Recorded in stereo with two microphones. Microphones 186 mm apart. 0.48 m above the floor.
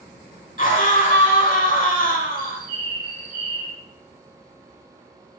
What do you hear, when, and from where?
0.6 s a scream: 45° left (ahead or behind), 1.7 m
2.4 s a bird: 25° left (ahead or behind), 1.5 m